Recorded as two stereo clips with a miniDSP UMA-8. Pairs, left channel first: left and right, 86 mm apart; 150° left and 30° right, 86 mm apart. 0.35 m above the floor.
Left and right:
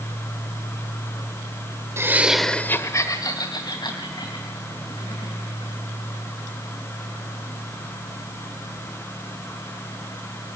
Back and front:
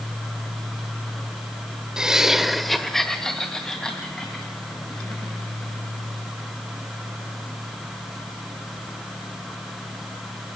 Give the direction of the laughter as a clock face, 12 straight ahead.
3 o'clock.